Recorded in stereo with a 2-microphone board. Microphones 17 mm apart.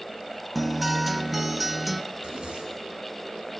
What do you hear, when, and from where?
0.6 s a guitar: centre (ahead or behind), 1.1 m
2.1 s a zipper: 75° right (ahead or behind), 6.5 m